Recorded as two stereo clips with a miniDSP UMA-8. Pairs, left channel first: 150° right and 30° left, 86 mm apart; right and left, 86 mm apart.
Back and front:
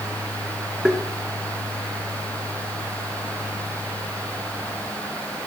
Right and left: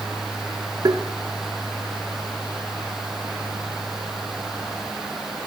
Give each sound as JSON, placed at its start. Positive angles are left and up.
{"t": 0.8, "sound": "tapping", "azimuth_deg": 110, "distance_m": 1.1}